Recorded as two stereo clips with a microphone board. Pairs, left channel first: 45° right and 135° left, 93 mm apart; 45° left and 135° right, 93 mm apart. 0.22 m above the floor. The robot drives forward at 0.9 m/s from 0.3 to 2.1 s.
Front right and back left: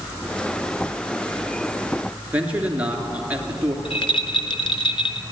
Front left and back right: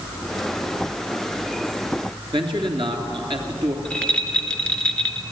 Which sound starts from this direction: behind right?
A man speaking, at 2.3 s.